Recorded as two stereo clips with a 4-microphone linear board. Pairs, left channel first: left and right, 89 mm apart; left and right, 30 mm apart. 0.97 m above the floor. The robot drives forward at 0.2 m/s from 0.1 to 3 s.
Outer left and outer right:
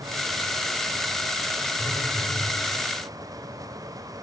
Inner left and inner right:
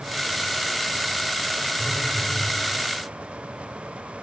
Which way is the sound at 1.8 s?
45° left (ahead or behind).